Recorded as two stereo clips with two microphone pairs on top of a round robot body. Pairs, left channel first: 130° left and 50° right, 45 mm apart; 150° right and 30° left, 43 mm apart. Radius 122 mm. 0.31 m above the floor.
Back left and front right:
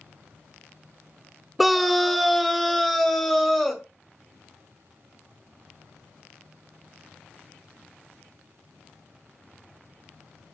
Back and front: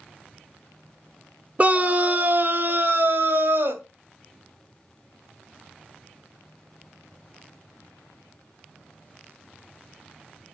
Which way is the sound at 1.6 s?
35° left.